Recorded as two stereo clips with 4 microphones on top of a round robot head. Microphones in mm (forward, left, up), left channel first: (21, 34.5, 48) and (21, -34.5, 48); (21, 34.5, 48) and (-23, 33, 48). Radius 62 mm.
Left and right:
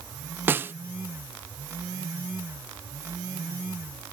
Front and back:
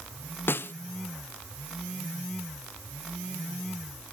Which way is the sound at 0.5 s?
35° right.